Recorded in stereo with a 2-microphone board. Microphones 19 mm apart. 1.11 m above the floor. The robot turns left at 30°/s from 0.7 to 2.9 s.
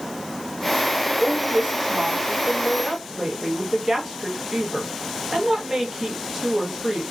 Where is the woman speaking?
95° right, 1.2 m; by 7.0 s 145° right, 1.2 m.